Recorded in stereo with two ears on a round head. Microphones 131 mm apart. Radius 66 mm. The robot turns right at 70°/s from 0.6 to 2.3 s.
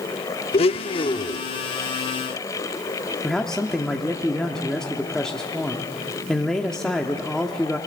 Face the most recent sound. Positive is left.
turn(degrees=5)  # may be behind; listen again after turning